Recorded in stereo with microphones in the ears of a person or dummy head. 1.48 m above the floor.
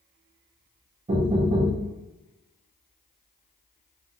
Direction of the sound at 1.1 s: 30° right (ahead or behind).